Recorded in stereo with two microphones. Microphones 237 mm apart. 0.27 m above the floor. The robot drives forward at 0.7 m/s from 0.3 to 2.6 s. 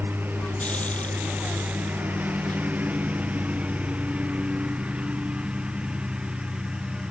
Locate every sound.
0.0 s a lawn mower: 10° right (ahead or behind); by 7.1 s 5° right (ahead or behind)